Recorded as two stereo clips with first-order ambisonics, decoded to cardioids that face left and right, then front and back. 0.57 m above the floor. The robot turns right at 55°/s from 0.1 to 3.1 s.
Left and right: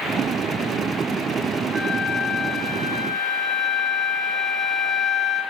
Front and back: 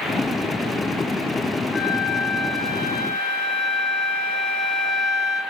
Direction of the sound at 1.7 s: 70° right.